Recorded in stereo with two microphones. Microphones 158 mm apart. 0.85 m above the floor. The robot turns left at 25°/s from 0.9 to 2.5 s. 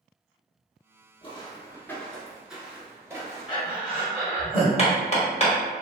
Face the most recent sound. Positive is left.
turn(degrees=40)  # may be behind; listen again after turning